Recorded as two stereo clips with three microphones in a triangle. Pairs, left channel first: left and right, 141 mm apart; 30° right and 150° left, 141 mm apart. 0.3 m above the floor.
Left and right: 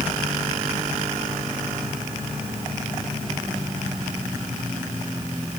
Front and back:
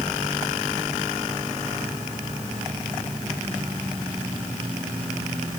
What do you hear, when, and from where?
Only background noise.